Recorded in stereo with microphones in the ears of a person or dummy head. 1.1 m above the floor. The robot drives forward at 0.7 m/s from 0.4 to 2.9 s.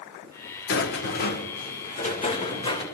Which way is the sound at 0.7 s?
60° left (ahead or behind).